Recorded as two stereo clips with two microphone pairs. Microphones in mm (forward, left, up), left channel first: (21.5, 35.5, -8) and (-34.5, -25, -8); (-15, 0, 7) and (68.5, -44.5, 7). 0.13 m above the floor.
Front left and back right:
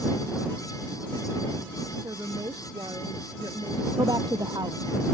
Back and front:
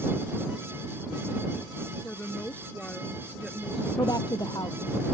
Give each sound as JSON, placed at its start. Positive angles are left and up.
{"t": 2.0, "sound": "a woman speaking", "azimuth_deg": -150}
{"t": 4.0, "sound": "a woman speaking", "azimuth_deg": -165}